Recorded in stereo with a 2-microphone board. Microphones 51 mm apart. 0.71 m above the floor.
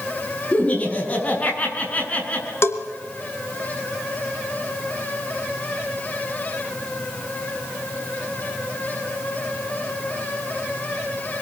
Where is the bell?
55° left (ahead or behind), 3 m.